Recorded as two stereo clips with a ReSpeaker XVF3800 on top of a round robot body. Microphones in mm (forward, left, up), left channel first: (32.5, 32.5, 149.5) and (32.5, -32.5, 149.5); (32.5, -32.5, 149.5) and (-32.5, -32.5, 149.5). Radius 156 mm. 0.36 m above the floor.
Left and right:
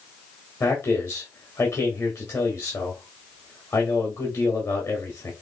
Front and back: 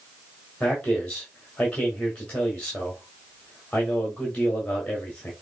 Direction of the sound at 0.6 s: 70° left.